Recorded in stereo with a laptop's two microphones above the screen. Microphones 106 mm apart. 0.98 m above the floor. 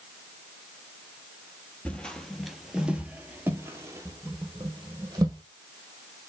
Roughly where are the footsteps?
Centre.